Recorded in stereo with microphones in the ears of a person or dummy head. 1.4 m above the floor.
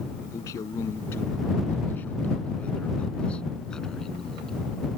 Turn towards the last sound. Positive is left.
turn(degrees=0)  # may be behind; listen again after turning